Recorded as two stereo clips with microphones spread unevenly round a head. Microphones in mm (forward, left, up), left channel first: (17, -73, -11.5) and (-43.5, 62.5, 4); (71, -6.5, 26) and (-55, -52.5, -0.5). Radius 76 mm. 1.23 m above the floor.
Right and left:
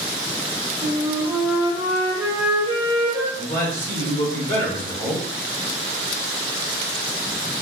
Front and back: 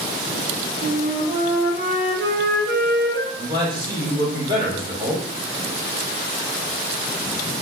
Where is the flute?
175° right, 0.8 m.